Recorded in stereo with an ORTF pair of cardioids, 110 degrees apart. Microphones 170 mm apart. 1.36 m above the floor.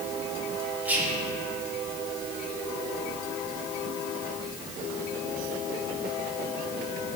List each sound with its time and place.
0.8 s whispering: 10° right, 0.7 m